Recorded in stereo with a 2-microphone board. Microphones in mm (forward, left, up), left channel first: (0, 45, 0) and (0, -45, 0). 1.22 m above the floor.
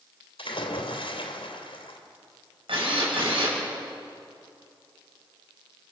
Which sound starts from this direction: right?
A drill, at 2.7 s.